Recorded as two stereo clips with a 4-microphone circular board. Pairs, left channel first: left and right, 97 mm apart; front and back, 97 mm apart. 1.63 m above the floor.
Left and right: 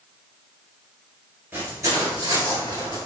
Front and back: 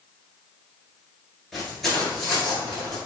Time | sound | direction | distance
1.5 | footsteps | 85° right | 1.7 m